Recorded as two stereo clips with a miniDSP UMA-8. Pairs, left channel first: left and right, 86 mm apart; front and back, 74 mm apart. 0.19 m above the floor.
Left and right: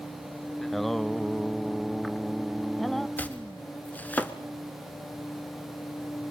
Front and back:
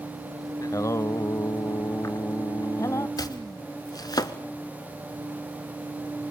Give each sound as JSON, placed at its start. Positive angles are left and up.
{"t": 0.6, "sound": "singing", "azimuth_deg": 5, "distance_m": 0.5}
{"t": 3.2, "sound": "chopping", "azimuth_deg": 20, "distance_m": 1.2}